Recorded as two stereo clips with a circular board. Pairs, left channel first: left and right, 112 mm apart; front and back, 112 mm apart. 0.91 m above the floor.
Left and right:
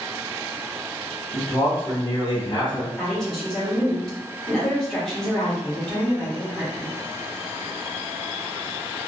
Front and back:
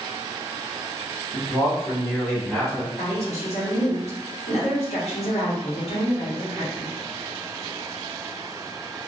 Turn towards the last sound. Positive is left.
turn(degrees=5)